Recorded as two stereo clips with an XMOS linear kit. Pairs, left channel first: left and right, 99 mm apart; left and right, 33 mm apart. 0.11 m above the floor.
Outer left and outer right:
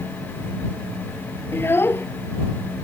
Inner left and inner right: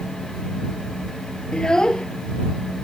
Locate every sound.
1.5 s a child speaking: 25° left (ahead or behind)